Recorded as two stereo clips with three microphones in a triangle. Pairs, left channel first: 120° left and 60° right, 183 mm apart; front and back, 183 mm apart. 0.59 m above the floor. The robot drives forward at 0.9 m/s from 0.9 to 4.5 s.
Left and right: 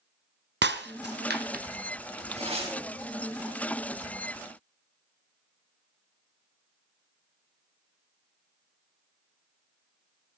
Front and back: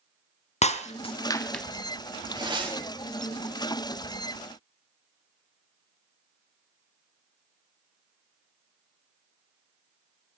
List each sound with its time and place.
0.6 s breaking glass: 55° right, 1.2 m; by 1.6 s 90° right, 1.0 m
2.4 s tearing paper: 115° right, 4 m; by 2.8 s 120° right, 4 m